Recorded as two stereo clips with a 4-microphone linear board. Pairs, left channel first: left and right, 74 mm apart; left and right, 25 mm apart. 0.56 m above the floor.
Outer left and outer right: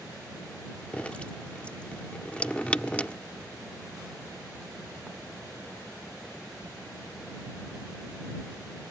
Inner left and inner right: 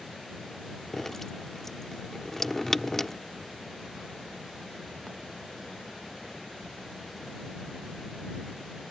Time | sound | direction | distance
0.9 | dripping | 20° left (ahead or behind) | ?